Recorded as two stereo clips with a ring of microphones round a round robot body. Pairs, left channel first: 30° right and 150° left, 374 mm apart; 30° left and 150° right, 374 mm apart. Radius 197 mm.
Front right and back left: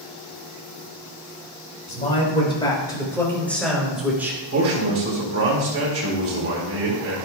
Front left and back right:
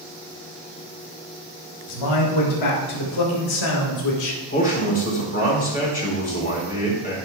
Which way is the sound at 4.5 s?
95° left.